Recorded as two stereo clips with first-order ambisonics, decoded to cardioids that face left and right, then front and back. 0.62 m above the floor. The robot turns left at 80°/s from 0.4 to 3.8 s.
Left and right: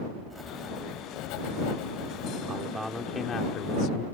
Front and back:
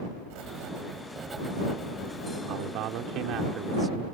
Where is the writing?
175° right; by 2.4 s 25° left.